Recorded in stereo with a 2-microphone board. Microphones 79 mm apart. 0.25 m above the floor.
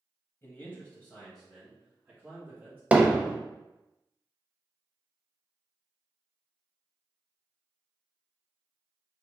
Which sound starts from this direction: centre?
Hammering, at 2.9 s.